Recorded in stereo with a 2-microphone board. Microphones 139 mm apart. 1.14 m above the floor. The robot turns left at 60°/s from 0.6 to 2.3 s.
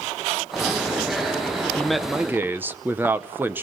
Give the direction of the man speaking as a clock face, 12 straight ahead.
12 o'clock.